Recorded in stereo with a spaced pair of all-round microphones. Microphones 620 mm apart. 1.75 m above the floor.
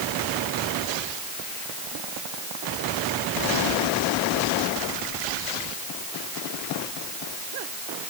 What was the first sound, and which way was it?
Only background noise.